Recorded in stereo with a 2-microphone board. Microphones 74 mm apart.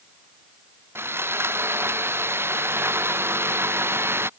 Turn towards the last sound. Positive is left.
turn(degrees=-35)  # may be behind; listen again after turning